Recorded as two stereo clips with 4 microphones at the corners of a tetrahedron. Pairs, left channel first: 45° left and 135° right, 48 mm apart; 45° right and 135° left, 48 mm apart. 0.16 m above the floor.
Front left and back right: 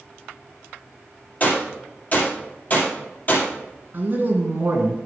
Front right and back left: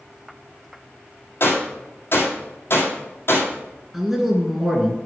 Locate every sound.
1.4 s a gunshot: 10° right, 2.5 m
3.9 s a man speaking: 140° right, 1.7 m